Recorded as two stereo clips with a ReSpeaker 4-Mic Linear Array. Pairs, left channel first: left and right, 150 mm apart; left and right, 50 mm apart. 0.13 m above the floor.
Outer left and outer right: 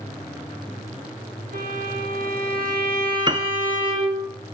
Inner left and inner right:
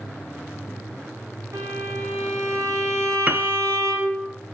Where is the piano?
30° right (ahead or behind), 1.2 m.